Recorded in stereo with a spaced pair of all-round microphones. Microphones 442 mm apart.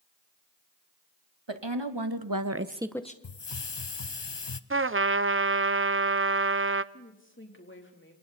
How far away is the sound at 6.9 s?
About 3.5 m.